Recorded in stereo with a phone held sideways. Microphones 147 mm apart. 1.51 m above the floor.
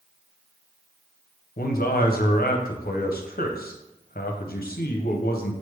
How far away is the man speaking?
About 0.7 m.